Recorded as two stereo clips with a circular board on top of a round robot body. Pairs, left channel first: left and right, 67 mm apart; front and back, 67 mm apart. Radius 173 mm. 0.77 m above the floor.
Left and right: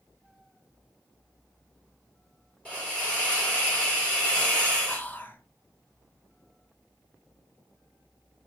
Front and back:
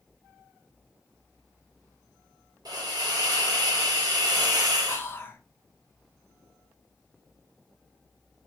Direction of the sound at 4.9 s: 40° left.